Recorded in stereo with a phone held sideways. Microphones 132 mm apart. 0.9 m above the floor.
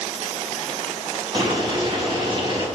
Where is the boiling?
40° right (ahead or behind), 6 m.